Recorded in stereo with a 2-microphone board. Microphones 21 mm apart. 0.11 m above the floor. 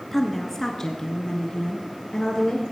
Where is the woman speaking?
10° left (ahead or behind), 1.2 m; by 2.6 s 45° left (ahead or behind), 2 m.